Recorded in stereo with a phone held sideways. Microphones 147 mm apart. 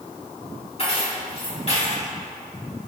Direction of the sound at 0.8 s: 45° left (ahead or behind).